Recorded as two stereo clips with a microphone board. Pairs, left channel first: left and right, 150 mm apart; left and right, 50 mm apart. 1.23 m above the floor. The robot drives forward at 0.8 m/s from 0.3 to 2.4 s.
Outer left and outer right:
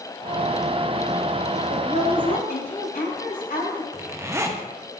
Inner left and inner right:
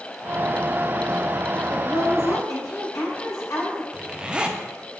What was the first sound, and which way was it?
A woman speaking, 85° left.